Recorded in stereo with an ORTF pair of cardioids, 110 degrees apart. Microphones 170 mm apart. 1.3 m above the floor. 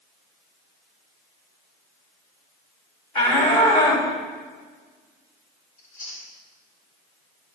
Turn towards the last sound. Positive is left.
turn(degrees=50)